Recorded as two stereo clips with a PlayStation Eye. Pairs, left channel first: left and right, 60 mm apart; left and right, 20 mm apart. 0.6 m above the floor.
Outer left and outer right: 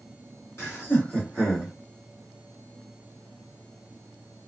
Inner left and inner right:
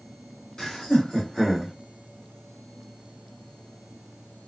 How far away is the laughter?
About 1.9 m.